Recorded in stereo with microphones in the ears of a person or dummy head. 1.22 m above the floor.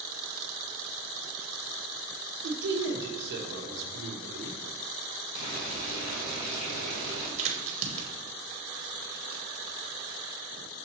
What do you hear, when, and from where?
2.4 s a man speaking: 70° right (ahead or behind), 1.0 m
5.3 s boiling: 75° left (ahead or behind), 1.4 m
7.4 s a crack: 40° right (ahead or behind), 1.2 m